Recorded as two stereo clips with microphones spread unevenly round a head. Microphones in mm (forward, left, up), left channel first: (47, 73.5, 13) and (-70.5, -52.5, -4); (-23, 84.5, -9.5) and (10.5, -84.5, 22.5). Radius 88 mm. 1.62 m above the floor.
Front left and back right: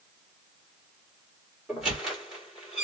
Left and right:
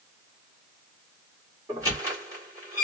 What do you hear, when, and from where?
1.7 s a squeak: 40° right, 1.4 m